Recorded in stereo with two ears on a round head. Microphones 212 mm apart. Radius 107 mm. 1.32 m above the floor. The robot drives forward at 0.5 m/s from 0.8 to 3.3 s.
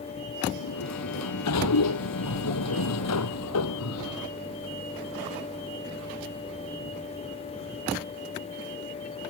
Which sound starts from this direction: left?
A sliding door, at 0.6 s.